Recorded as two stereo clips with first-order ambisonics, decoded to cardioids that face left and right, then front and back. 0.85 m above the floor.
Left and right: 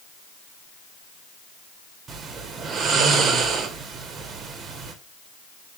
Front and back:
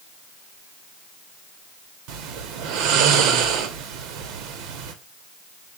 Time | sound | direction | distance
2.1 | snoring | 155° right | 0.7 m